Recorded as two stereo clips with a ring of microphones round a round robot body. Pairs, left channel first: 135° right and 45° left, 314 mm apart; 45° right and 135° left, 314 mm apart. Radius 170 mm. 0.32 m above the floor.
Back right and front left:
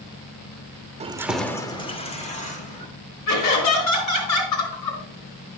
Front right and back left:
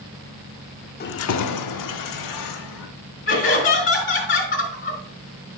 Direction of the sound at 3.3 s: 110° right.